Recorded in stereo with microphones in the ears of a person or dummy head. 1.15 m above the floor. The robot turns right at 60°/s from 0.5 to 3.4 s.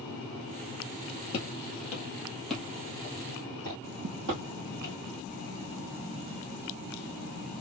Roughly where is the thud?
Right.